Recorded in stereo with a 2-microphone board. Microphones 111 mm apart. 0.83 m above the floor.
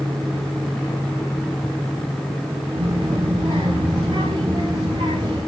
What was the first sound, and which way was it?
A child speaking, 65° right (ahead or behind).